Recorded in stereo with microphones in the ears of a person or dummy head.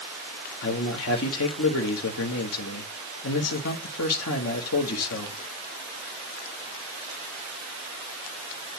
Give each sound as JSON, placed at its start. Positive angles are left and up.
{"t": 0.6, "sound": "a man speaking", "side_deg": 80, "distance_m": 1.2}